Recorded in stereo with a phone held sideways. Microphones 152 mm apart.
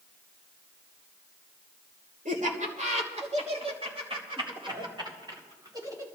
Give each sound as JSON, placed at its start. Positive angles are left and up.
{"t": 2.2, "sound": "laughter", "side_deg": -60, "distance_m": 3.0}